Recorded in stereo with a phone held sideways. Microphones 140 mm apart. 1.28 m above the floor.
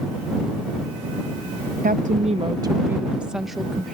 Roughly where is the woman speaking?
Right.